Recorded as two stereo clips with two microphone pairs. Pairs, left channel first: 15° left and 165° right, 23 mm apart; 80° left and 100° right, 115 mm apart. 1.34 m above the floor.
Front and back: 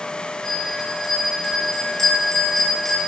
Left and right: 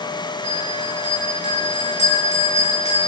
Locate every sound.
0.4 s a bell: 95° left, 8 m